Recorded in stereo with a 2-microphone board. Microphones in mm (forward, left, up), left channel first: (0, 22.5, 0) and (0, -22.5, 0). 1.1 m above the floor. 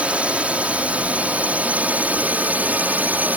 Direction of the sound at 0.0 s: 25° right (ahead or behind).